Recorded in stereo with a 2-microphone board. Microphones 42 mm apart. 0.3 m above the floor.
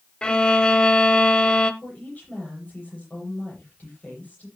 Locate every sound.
0.2 s a violin: 25° left (ahead or behind), 1.1 m
1.8 s a woman speaking: 40° left (ahead or behind), 10 m